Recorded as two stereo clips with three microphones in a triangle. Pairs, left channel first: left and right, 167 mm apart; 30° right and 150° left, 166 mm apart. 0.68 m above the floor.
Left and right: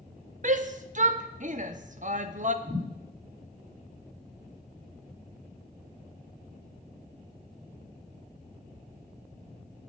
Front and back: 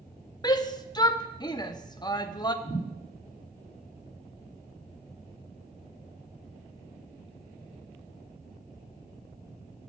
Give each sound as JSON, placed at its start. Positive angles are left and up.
{"t": 0.4, "sound": "a shout", "azimuth_deg": -90, "distance_m": 0.6}
{"t": 2.6, "sound": "a thud", "azimuth_deg": -135, "distance_m": 5.0}